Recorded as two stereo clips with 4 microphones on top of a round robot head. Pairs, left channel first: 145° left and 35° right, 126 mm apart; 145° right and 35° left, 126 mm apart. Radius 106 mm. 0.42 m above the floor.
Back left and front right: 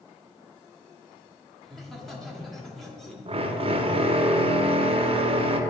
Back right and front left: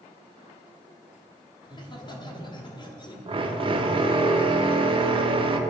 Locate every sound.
1.6 s laughter: 125° right, 1.6 m
3.3 s a drill: 5° right, 0.7 m